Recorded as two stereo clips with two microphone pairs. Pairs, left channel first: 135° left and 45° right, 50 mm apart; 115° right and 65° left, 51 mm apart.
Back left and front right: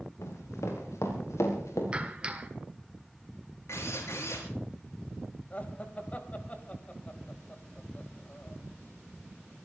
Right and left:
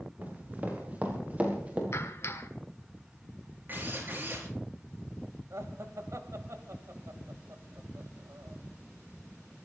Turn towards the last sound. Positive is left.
turn(degrees=75)